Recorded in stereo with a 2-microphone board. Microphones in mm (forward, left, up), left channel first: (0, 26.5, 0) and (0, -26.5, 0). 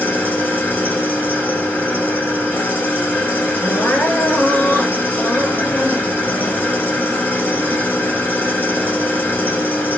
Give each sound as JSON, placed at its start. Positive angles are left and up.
{"t": 0.0, "sound": "an engine running", "side_deg": 40, "distance_m": 1.3}
{"t": 3.6, "sound": "crying", "side_deg": 50, "distance_m": 2.0}